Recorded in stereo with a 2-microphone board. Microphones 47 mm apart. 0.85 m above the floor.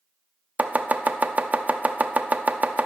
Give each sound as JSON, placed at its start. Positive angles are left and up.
{"t": 0.6, "sound": "chopping", "side_deg": -35, "distance_m": 0.6}